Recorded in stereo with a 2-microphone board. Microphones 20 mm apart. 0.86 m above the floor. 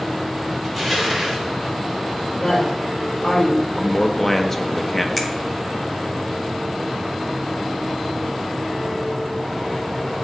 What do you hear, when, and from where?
0.6 s crushing: 15° left (ahead or behind), 2 m
2.3 s a woman speaking: 55° left (ahead or behind), 3.5 m
3.7 s a man speaking: 20° left (ahead or behind), 0.7 m
5.2 s a finger snap: 10° left (ahead or behind), 0.9 m